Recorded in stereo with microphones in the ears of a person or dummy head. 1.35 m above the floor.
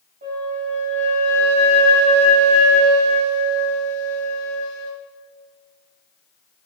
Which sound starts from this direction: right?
A flute, at 0.2 s.